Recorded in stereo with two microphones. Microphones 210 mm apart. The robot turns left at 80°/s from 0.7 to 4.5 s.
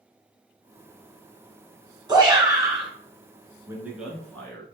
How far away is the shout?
About 1.5 m.